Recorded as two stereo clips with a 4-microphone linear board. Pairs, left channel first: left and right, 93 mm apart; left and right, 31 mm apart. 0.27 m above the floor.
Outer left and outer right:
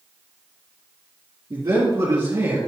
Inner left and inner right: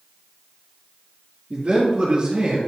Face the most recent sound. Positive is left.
turn(degrees=-40)  # may be behind; listen again after turning